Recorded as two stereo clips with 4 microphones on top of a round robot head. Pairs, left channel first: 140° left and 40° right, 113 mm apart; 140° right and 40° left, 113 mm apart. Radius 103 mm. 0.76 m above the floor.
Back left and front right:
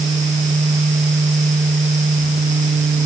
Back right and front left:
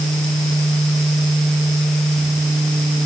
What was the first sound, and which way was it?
Only background noise.